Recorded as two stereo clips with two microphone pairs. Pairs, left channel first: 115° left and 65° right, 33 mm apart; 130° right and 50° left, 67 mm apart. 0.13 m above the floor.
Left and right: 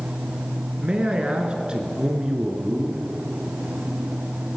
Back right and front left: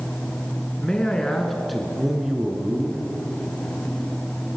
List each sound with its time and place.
0.8 s a man speaking: 65° right, 1.8 m; by 3.1 s 5° right, 2.0 m